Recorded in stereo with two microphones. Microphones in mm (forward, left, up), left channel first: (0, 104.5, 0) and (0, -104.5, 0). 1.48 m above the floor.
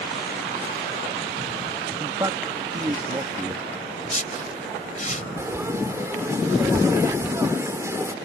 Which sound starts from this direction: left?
A whoosh, at 4.0 s.